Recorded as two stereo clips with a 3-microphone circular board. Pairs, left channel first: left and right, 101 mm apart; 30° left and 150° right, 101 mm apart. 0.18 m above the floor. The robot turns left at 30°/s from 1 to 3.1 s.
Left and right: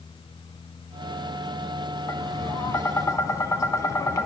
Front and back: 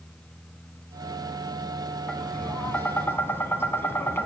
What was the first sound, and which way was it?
Tapping, 105° left.